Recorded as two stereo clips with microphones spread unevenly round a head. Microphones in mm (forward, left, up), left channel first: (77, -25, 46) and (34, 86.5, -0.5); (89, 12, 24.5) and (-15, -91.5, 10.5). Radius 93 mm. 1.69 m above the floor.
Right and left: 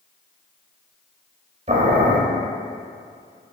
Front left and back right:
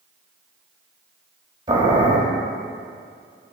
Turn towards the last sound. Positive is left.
turn(degrees=160)